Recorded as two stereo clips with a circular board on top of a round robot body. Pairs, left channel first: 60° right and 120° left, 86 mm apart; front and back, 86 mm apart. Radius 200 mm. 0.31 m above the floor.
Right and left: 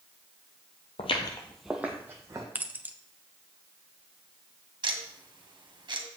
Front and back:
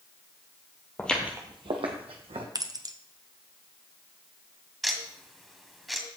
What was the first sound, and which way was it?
Footsteps, 70° right.